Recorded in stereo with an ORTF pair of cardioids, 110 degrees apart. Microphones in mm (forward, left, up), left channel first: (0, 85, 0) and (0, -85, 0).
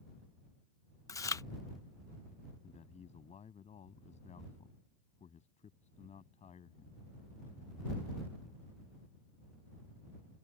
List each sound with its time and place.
1.1 s chewing: 20° left
2.6 s a man speaking: 40° left